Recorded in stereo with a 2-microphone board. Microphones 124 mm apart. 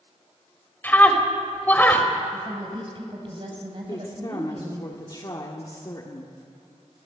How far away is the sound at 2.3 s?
About 4 m.